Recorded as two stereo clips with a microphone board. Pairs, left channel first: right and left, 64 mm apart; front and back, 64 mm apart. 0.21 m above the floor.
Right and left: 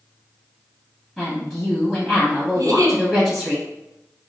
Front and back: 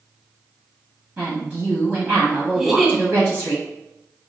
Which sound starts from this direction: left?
A giggle, at 2.5 s.